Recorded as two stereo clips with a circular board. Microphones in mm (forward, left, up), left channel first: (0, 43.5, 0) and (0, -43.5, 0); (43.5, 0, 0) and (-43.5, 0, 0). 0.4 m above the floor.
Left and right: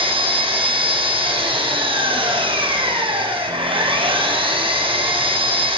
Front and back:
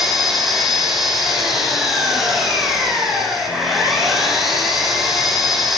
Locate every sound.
0.0 s an engine running: 90° right, 7 m